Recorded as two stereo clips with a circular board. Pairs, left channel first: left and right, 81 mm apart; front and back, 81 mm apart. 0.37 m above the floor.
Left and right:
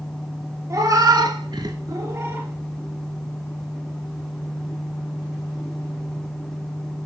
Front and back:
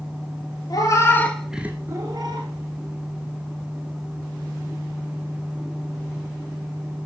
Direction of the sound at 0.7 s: 40° right.